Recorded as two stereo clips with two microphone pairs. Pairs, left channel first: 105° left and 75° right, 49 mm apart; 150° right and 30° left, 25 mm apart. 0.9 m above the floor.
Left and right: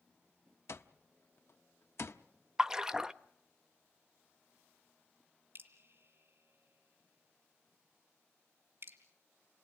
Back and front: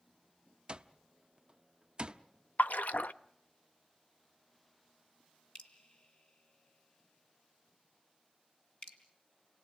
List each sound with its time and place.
0.7 s an alarm clock: 80° left, 0.7 m
2.6 s a splash: 150° right, 0.5 m
5.5 s dripping: 105° right, 2 m